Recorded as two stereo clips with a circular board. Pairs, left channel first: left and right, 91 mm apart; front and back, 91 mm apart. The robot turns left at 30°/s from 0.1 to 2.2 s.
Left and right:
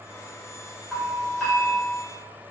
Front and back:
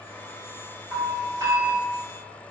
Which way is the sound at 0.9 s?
165° right.